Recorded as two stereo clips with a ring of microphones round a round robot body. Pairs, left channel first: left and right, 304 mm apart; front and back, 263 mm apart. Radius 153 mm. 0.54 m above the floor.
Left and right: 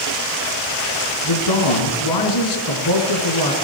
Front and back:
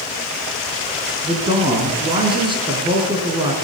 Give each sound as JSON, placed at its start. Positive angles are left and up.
{"t": 1.2, "sound": "a man speaking", "azimuth_deg": 110, "distance_m": 6.0}